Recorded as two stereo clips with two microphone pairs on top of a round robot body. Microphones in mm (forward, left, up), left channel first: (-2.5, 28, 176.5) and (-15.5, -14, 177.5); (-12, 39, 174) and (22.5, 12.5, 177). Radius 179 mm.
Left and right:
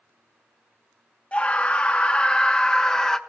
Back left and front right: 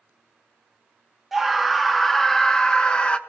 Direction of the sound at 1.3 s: 45° left.